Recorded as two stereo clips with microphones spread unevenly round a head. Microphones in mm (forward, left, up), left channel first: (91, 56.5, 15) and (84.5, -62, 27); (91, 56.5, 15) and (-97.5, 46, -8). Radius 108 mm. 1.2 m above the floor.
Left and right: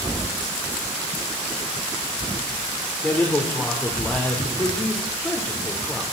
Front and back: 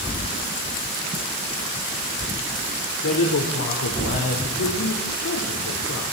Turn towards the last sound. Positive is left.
turn(degrees=10)